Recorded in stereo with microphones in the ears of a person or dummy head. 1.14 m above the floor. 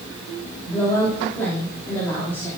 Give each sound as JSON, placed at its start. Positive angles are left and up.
{"t": 0.7, "sound": "a woman speaking", "side_deg": 15, "distance_m": 3.0}